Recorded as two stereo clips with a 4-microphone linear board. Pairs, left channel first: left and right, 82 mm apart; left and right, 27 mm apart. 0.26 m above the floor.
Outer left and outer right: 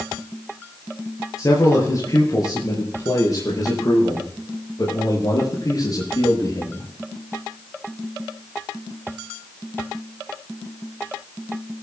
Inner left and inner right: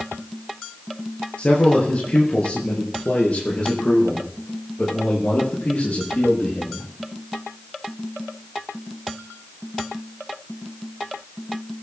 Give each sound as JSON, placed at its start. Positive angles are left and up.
{"t": 1.4, "sound": "a man speaking", "side_deg": 40, "distance_m": 6.0}